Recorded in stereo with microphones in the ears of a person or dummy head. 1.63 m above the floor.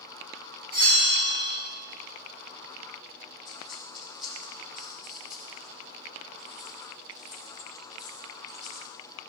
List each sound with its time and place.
0.7 s a bell: 25° right (ahead or behind), 2.5 m
3.5 s a dropped coin: centre (ahead or behind), 3 m